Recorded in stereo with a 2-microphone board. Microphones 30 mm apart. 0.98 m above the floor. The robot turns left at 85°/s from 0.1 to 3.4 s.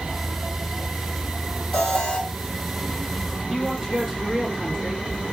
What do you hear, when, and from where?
1.7 s an alarm: 140° left, 2 m; by 2.2 s 100° left, 2 m
3.5 s a man speaking: 20° right (ahead or behind), 1.6 m